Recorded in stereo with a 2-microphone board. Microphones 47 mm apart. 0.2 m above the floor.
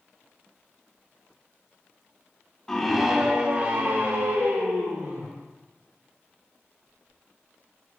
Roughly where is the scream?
Centre.